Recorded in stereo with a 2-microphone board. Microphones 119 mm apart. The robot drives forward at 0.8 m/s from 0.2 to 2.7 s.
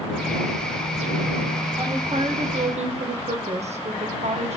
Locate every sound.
1.8 s a woman speaking: 45° right (ahead or behind), 1.8 m; by 4.6 s 65° right (ahead or behind), 1.3 m